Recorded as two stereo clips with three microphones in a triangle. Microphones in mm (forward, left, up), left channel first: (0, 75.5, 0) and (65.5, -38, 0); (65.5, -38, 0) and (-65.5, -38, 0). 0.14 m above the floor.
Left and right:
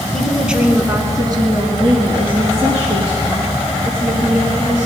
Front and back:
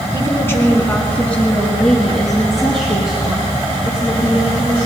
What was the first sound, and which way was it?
A woman speaking, 40° left.